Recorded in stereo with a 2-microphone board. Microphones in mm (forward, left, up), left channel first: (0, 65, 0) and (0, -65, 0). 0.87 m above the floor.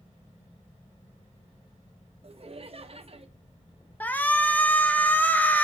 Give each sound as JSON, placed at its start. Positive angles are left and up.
{"t": 2.2, "sound": "laughter", "side_deg": -50, "distance_m": 0.8}
{"t": 4.0, "sound": "a shout", "side_deg": 15, "distance_m": 0.6}